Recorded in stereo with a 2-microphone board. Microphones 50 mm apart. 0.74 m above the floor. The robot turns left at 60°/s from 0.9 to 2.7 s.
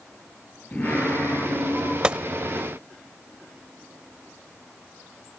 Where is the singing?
155° left, 9 m; by 1.9 s 90° left, 9 m.